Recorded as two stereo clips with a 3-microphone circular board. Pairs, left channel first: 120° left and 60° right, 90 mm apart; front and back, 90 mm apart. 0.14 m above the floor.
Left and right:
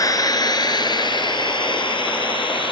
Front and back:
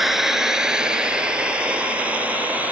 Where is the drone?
95° left; by 2.7 s 105° left.